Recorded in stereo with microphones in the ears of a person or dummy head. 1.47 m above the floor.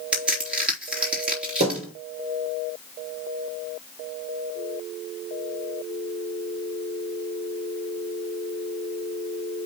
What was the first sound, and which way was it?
A crack, 5° right (ahead or behind).